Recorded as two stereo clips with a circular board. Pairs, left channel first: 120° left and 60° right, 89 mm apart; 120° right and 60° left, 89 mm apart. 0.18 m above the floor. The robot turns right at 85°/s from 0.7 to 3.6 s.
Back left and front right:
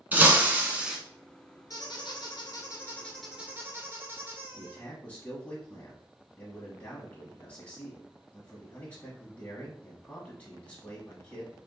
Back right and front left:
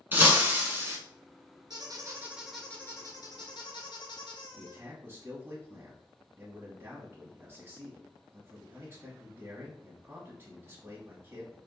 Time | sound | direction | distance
0.1 | breaking glass | straight ahead | 1.0 m
1.7 | a squeak | 80° left | 1.3 m
4.6 | a man speaking | 70° left | 1.1 m